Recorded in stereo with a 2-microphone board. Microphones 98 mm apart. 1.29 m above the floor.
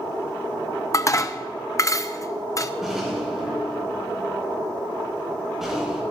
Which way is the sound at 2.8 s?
5° right (ahead or behind).